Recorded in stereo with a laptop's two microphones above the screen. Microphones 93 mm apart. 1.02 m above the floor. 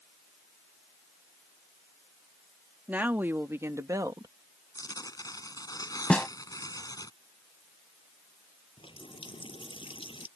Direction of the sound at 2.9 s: 20° right (ahead or behind).